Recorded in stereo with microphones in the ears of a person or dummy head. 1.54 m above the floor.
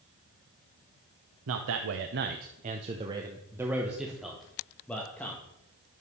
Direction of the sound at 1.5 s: 70° right (ahead or behind).